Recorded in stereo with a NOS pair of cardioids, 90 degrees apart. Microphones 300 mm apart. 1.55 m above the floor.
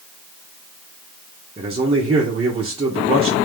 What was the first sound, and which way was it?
A man speaking, 20° right.